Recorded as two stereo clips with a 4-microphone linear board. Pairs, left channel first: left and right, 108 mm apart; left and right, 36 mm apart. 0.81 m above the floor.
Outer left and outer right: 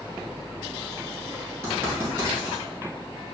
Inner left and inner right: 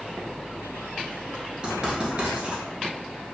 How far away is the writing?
About 1.8 m.